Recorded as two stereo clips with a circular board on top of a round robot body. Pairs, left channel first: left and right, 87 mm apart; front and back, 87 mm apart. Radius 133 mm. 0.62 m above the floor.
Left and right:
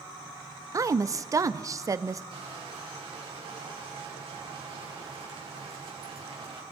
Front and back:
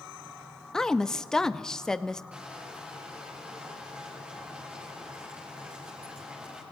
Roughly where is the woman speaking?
Right.